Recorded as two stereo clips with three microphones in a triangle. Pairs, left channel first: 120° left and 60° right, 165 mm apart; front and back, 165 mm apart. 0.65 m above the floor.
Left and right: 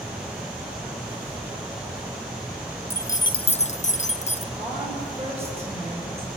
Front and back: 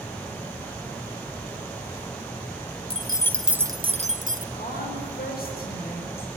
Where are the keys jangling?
50° left, 0.8 m; by 4.4 s 165° left, 1.0 m.